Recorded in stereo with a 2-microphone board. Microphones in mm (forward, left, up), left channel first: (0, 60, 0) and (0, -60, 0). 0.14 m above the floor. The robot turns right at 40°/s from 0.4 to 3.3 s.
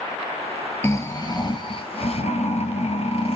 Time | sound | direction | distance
0.8 | snoring | 20° left | 1.5 m